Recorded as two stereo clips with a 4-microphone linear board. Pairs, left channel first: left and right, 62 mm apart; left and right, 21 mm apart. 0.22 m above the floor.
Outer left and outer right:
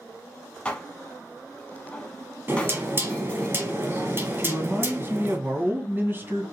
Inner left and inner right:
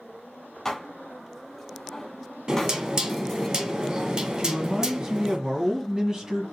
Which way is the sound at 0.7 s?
15° left (ahead or behind).